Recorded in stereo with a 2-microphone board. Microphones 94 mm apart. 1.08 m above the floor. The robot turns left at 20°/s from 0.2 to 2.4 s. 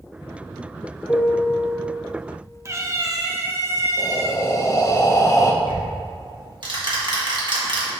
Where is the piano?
20° left (ahead or behind), 0.7 m; by 1.8 s 25° left (ahead or behind), 0.7 m.